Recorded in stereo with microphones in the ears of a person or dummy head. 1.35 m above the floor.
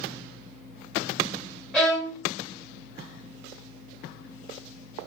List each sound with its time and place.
1.7 s a violin: 5° left (ahead or behind), 1.7 m